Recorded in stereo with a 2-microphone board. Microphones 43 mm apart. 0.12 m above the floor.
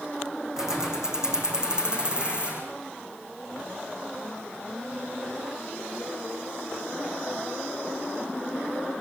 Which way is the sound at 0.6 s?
10° right (ahead or behind).